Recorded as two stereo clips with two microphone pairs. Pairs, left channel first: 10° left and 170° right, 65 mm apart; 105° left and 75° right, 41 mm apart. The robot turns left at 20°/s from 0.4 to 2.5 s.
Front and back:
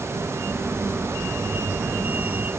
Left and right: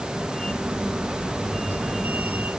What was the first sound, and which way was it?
Only background noise.